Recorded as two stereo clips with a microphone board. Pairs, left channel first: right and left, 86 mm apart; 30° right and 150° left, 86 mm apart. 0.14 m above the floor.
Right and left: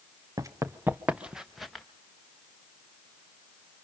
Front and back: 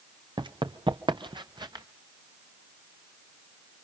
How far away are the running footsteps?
About 1.1 m.